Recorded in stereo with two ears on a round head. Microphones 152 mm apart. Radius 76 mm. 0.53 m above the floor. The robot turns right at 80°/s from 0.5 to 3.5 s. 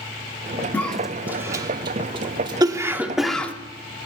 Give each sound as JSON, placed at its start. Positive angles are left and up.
{"t": 0.7, "sound": "a cough", "side_deg": 10, "distance_m": 1.2}